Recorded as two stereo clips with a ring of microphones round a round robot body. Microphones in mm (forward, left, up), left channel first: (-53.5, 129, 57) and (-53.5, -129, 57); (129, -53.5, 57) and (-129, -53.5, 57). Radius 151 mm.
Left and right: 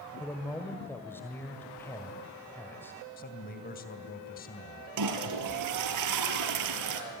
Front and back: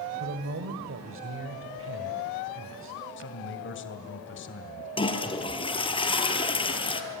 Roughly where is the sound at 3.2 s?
Ahead left.